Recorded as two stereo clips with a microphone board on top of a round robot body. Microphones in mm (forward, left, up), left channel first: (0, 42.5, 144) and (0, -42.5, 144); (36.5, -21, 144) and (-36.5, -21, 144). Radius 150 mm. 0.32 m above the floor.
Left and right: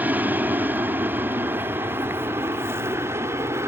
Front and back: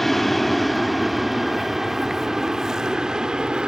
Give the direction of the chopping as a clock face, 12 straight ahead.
No chopping in this recording.